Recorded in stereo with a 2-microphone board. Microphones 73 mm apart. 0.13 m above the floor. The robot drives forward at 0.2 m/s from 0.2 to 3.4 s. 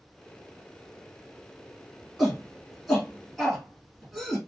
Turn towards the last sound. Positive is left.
turn(degrees=0)  # may be behind; listen again after turning